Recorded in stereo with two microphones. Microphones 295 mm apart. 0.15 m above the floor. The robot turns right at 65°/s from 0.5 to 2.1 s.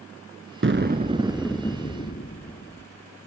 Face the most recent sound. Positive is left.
turn(degrees=40)